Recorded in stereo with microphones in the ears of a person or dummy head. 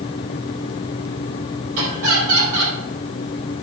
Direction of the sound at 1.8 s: 75° right (ahead or behind).